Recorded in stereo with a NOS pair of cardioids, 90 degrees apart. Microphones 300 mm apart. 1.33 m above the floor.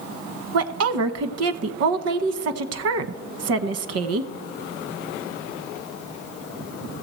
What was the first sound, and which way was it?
A woman speaking, 55° right.